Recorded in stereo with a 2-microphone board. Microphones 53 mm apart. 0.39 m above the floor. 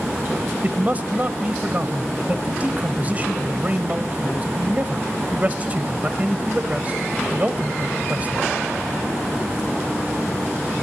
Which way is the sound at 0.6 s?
30° right (ahead or behind).